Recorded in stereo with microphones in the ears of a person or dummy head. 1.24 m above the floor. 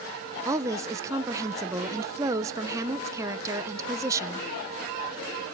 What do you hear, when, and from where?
0.5 s a woman speaking: 15° right (ahead or behind), 0.8 m